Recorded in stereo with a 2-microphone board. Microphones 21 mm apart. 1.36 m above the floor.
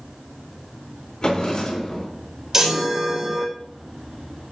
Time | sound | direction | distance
1.2 | a drawer | 45° left (ahead or behind) | 4 m
2.5 | a chime | 25° right (ahead or behind) | 2.5 m